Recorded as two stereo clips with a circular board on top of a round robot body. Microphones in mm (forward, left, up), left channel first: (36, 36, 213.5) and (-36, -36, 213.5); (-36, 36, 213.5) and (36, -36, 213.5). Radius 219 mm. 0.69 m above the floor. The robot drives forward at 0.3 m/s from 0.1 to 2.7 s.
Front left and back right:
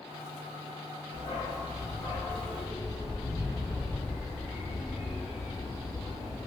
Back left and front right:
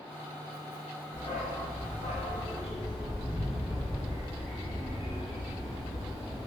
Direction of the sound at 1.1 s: 80° left.